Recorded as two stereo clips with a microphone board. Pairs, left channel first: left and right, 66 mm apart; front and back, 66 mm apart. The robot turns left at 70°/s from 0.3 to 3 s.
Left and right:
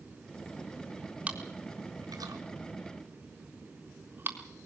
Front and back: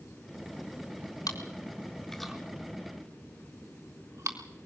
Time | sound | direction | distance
1.3 | chewing | 20° right | 3.5 m